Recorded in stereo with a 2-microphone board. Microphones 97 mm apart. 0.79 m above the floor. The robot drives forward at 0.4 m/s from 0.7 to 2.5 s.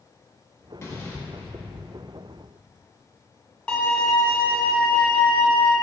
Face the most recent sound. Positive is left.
turn(degrees=10)  # may be behind; listen again after turning